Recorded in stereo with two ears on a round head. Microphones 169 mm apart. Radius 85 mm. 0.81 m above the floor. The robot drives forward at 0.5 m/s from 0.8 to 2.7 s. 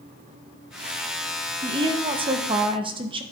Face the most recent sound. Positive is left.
turn(degrees=-30)  # may be behind; listen again after turning